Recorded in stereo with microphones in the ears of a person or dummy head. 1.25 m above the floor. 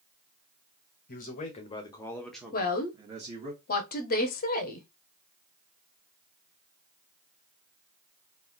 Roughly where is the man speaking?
Left.